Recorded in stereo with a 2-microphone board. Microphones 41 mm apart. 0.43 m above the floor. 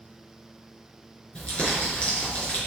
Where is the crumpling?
25° left (ahead or behind), 5 m.